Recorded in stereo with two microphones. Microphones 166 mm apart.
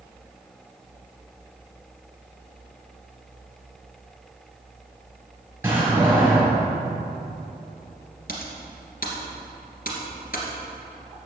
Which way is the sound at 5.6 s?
10° right (ahead or behind).